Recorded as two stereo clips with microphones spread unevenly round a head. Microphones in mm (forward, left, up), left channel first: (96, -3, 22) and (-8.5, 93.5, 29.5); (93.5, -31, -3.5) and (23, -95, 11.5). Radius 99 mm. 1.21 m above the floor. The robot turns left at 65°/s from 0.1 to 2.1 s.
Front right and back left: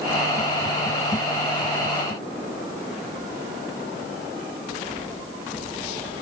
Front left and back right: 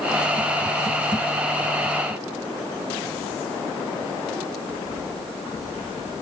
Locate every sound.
Only background noise.